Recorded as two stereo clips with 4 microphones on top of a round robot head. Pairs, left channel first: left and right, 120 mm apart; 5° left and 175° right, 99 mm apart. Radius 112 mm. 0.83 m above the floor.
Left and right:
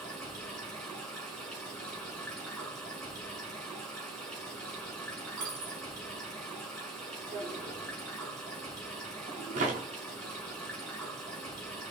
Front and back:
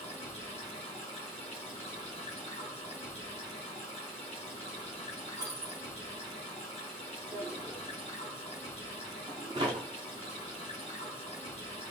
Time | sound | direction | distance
0.0 | running water | 5° left | 2 m
5.4 | a dropped coin | 105° right | 0.9 m
7.3 | a drawer | 120° right | 0.9 m